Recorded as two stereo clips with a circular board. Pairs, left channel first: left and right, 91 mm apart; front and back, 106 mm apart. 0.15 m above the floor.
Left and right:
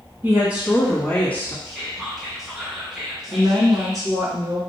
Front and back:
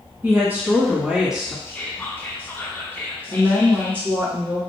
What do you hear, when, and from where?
0.2 s a woman speaking: 125° right, 1.1 m; by 1.6 s 95° left, 1.1 m
1.6 s whispering: 10° right, 1.2 m
3.3 s a woman speaking: 115° right, 1.9 m